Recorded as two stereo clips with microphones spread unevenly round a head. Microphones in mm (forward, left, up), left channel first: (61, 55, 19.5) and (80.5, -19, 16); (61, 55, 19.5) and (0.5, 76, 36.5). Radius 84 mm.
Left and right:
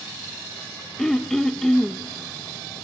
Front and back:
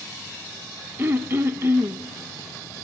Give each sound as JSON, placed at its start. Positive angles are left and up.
{"t": 1.0, "sound": "throat clearing", "azimuth_deg": -175, "distance_m": 0.5}